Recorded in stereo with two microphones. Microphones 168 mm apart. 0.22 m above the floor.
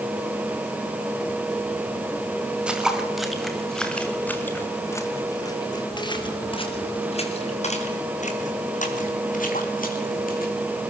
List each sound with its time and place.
2.7 s footsteps: 5° right (ahead or behind), 4 m; by 10.5 s 60° left (ahead or behind), 5 m